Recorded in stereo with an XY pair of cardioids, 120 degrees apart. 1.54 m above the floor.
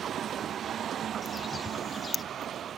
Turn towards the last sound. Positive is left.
turn(degrees=25)